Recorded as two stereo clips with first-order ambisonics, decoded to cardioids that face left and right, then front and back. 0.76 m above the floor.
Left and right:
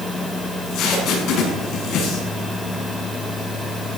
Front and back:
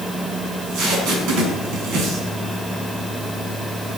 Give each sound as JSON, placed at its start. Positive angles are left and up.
{"t": 0.5, "sound": "tape being pulled", "azimuth_deg": 140, "distance_m": 6.5}